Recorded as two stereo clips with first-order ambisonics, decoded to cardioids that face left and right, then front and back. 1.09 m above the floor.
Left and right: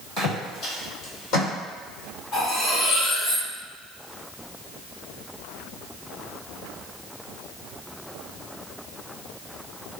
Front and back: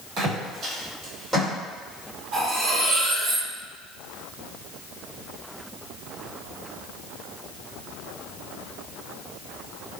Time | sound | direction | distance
0.2 | footsteps | 145° left | 1.8 m
2.3 | cutlery clinking | 145° left | 1.5 m